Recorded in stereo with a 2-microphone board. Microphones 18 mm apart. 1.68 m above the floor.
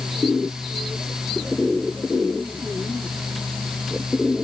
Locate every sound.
Only background noise.